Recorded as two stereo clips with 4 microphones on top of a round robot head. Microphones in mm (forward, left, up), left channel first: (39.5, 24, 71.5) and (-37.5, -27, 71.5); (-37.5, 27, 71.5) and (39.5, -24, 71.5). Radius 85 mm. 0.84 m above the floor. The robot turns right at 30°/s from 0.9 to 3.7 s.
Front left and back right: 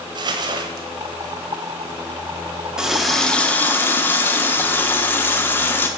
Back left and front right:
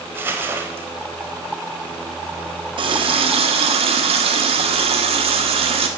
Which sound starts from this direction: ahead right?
A running tap, at 2.8 s.